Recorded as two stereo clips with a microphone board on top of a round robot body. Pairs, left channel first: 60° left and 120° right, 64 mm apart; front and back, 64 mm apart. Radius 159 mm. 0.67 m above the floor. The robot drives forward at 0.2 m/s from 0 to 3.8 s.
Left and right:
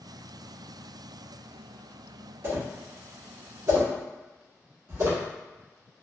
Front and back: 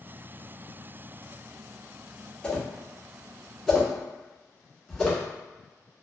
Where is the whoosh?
75° right, 1.2 m; by 5.2 s 90° right, 1.2 m.